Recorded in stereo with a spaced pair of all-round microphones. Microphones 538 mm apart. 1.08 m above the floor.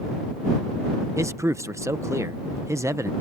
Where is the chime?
I don't hear a chime.